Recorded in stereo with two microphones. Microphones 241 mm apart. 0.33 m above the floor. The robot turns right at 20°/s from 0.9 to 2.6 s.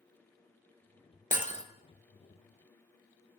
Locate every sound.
1.3 s breaking glass: 35° left (ahead or behind), 1.4 m; by 1.6 s 25° left (ahead or behind), 1.4 m